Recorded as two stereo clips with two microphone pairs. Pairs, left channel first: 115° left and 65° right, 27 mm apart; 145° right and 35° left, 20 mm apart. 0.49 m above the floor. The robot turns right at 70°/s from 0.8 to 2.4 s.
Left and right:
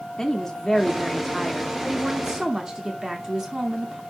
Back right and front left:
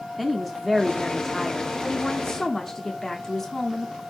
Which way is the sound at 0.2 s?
155° left.